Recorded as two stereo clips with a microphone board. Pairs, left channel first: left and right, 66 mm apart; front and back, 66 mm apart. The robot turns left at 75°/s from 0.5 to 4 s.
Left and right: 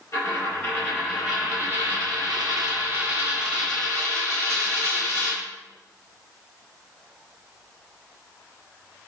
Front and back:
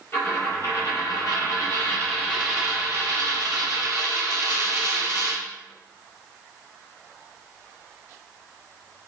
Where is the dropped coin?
55° left, 1.5 m; by 5.4 s 155° left, 1.5 m.